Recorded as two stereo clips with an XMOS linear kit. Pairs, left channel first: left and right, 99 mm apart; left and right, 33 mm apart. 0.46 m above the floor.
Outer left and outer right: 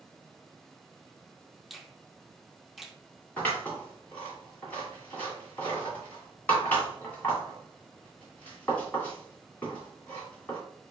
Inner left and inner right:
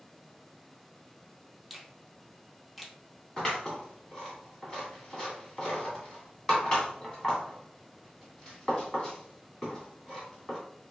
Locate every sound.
1.7 s a finger snap: centre (ahead or behind), 0.5 m
3.4 s scissors: 20° left (ahead or behind), 2.0 m